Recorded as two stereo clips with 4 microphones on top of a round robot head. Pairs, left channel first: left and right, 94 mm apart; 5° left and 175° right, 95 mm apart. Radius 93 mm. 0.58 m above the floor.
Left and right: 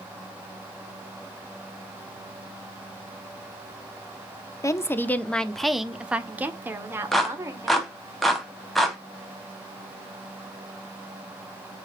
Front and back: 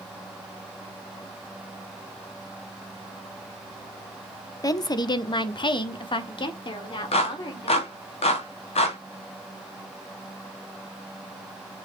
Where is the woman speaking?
45° left, 1.3 m; by 7.9 s 35° right, 2.5 m.